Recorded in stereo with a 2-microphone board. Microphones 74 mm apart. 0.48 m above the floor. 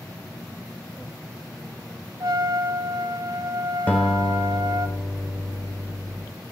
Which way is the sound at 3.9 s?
20° left (ahead or behind).